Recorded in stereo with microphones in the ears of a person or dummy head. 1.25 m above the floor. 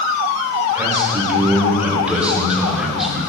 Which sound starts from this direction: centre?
A man speaking, at 0.8 s.